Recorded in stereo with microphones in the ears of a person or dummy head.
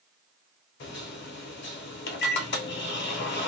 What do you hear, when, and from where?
0.8 s a microwave: 50° left (ahead or behind), 0.6 m